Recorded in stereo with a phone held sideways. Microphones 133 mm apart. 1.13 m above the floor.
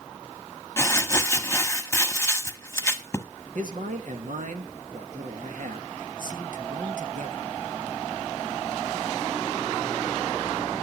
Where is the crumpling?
20° left (ahead or behind), 1.2 m.